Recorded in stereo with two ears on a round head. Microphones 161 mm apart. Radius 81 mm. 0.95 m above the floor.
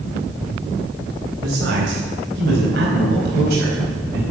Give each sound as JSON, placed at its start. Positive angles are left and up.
{"t": 1.4, "sound": "a man speaking", "side_deg": -80, "distance_m": 4.0}